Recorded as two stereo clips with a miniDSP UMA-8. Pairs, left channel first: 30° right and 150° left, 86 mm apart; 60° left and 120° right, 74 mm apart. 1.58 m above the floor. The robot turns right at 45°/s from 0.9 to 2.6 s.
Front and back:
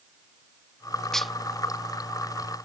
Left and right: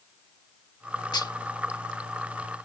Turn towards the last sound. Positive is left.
turn(degrees=120)